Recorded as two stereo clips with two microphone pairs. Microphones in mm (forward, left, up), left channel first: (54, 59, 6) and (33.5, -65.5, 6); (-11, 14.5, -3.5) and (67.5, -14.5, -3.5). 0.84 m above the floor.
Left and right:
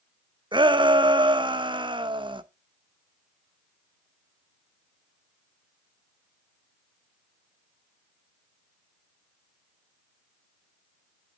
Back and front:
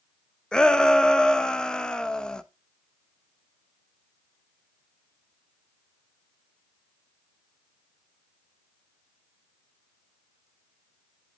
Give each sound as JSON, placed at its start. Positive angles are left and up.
{"t": 0.5, "sound": "a shout", "azimuth_deg": -120, "distance_m": 0.6}